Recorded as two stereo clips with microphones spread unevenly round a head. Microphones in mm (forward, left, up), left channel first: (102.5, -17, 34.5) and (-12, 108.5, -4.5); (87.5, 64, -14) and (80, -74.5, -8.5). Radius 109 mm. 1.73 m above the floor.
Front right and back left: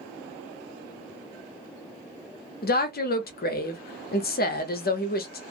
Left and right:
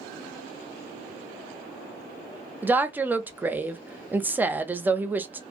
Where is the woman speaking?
15° right, 0.8 m.